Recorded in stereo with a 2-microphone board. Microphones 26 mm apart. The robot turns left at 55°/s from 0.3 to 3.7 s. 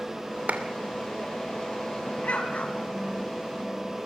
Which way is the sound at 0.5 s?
65° right (ahead or behind).